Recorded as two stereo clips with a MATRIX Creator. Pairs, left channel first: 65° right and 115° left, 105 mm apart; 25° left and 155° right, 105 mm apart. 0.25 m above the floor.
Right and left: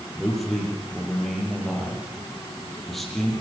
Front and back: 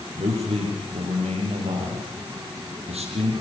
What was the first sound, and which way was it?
A man speaking, 155° right.